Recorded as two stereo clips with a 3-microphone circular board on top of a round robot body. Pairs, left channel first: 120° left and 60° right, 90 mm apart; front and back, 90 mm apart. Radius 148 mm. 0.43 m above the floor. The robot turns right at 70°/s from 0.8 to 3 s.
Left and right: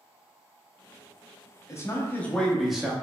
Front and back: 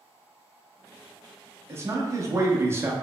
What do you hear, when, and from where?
1.7 s a man speaking: 140° left, 0.8 m; by 2.9 s 130° right, 0.8 m